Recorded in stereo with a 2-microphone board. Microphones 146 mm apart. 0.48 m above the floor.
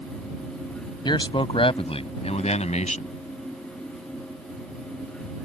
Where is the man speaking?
30° left (ahead or behind); by 3.1 s 55° left (ahead or behind).